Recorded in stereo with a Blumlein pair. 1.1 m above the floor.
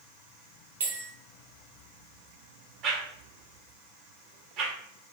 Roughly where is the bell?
Ahead right.